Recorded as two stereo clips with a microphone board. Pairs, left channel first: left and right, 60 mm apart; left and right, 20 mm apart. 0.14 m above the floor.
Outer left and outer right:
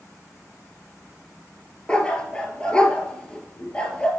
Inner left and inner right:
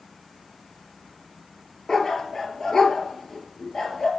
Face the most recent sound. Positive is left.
turn(degrees=15)  # may be behind; listen again after turning